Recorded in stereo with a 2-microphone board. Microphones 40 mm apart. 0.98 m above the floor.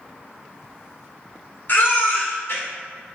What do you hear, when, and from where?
1.7 s a baby crying: 50° left (ahead or behind), 1.2 m